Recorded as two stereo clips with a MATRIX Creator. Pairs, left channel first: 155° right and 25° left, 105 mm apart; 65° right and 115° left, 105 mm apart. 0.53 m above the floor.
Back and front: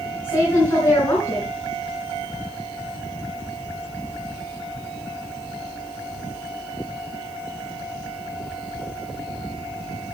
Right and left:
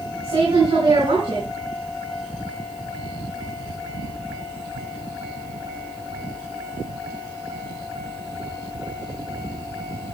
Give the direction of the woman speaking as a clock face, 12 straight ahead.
7 o'clock.